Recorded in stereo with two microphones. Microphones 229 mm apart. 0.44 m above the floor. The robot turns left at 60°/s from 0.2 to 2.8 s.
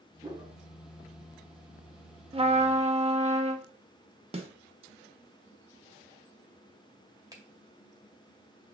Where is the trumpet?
25° right (ahead or behind), 0.7 m; by 3.7 s 30° right (ahead or behind), 0.7 m.